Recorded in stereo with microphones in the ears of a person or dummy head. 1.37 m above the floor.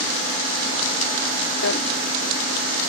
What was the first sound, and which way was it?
A drawer, 60° left (ahead or behind).